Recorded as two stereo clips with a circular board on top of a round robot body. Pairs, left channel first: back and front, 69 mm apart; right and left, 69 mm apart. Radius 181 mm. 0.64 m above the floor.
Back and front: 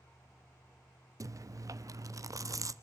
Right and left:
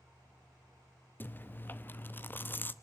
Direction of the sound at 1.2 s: 30° right.